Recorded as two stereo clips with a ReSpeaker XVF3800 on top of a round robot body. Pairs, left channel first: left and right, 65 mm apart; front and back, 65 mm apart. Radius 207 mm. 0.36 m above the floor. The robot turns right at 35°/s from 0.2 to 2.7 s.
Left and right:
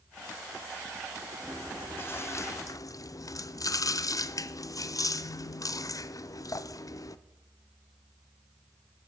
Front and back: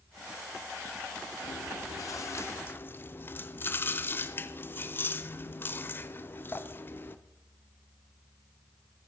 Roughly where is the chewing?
Ahead.